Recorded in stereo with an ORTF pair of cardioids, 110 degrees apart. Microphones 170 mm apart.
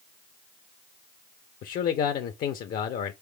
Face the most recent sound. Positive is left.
turn(degrees=60)